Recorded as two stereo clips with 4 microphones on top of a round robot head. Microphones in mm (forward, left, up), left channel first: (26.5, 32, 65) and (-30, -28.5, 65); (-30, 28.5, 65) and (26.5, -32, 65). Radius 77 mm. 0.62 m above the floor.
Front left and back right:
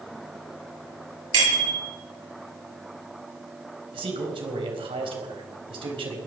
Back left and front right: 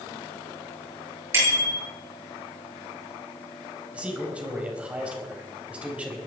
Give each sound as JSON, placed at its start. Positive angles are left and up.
{"t": 1.3, "sound": "a bicycle bell", "azimuth_deg": -105, "distance_m": 9.5}
{"t": 3.9, "sound": "a man speaking", "azimuth_deg": -120, "distance_m": 4.0}